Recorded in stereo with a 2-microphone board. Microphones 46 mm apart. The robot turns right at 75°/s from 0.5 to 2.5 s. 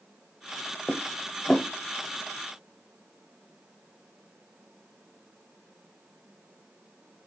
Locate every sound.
0.9 s dishes clattering: 15° right (ahead or behind), 0.9 m; by 1.7 s 25° left (ahead or behind), 0.9 m